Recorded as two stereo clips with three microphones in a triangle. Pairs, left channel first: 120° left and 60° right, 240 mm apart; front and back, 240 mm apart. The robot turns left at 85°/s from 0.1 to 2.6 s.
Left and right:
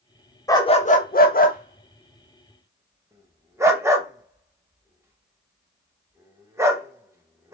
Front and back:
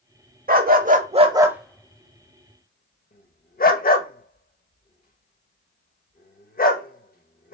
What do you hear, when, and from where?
0.5 s a dog barking: 170° right, 0.7 m; by 7.5 s 10° left, 0.7 m